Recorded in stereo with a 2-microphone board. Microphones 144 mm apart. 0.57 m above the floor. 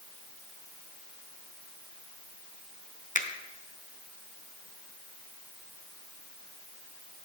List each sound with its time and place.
3.1 s a finger snap: 60° left (ahead or behind), 0.7 m